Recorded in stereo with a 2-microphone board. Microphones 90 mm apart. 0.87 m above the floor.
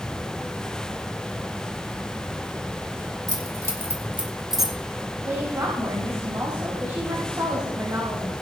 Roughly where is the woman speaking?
Right.